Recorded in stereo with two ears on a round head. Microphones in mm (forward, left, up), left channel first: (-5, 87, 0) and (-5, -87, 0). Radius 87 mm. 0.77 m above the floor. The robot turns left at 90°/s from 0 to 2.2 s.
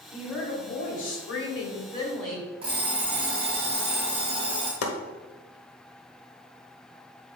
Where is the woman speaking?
170° right, 3 m; by 2.5 s 5° left, 3 m.